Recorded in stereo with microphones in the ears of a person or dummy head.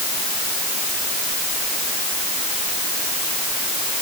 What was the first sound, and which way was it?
Only background noise.